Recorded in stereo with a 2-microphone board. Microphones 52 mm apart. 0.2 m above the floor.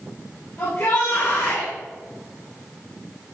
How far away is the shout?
About 5 m.